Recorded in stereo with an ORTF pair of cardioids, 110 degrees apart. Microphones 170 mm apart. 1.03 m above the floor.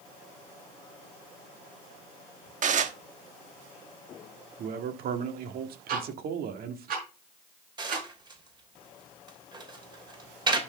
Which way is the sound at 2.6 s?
50° right.